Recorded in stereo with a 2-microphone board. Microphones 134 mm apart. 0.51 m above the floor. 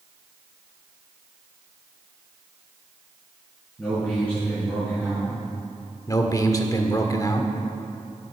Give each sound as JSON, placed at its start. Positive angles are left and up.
{"t": 3.8, "sound": "a man speaking", "side_deg": 10, "distance_m": 5.0}
{"t": 6.1, "sound": "a man speaking", "side_deg": 25, "distance_m": 1.1}